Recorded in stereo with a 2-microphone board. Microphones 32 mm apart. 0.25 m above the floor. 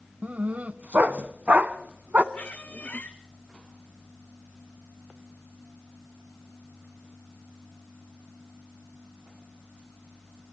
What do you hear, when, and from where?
0.2 s a dog barking: 55° right (ahead or behind), 0.9 m
2.3 s a squeak: 55° left (ahead or behind), 1.6 m